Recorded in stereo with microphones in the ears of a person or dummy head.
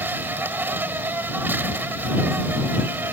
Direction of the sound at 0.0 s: 10° right (ahead or behind).